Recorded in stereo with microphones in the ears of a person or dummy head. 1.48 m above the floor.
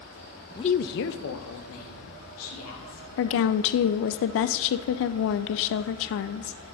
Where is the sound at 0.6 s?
20° left (ahead or behind), 0.5 m; by 3.0 s 85° left, 3.5 m.